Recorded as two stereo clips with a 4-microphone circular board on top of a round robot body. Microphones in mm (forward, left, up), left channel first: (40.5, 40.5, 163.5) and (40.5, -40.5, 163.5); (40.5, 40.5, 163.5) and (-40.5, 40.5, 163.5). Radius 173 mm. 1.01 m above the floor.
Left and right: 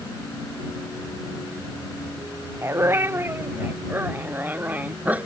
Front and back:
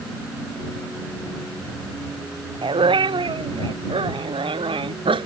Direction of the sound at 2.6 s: 155° right.